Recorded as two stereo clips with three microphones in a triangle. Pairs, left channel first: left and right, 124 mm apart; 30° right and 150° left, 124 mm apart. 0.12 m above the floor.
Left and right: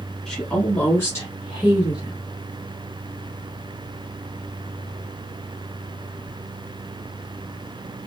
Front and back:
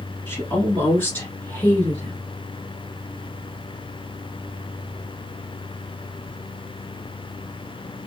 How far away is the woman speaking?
About 1.3 m.